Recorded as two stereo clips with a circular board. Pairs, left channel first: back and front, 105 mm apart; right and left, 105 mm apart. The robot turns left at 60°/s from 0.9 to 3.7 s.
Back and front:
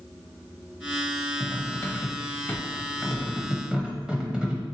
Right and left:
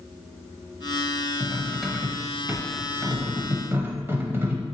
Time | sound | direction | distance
1.4 | cutlery clinking | 155° right | 0.6 m